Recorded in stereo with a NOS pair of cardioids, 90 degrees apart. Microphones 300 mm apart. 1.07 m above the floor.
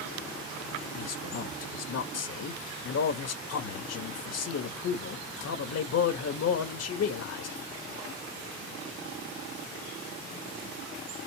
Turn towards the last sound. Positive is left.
turn(degrees=55)